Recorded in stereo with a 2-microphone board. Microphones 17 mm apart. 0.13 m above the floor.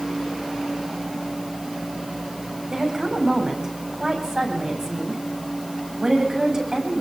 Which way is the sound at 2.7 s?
30° right (ahead or behind).